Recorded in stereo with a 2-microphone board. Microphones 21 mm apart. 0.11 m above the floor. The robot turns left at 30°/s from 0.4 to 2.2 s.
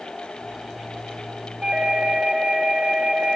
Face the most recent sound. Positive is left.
turn(degrees=-55)  # may be behind; listen again after turning